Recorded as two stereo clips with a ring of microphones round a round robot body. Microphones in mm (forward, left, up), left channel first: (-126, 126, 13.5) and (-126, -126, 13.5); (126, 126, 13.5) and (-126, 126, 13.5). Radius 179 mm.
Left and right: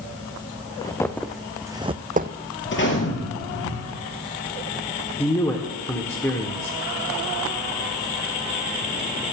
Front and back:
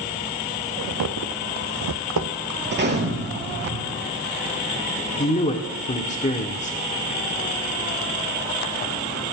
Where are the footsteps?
165° left, 1.7 m; by 2.4 s 140° right, 1.2 m.